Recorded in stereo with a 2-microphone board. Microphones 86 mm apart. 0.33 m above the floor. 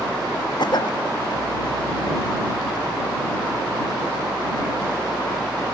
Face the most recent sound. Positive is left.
turn(degrees=60)  # may be behind; listen again after turning